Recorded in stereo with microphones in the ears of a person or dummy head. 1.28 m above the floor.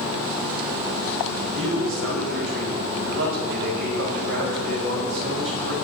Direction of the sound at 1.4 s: 85° right.